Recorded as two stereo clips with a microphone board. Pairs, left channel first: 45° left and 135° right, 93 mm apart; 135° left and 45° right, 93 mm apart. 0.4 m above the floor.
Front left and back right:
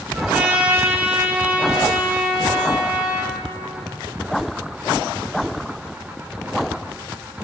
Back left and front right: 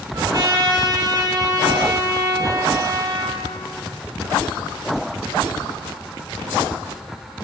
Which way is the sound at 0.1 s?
65° right.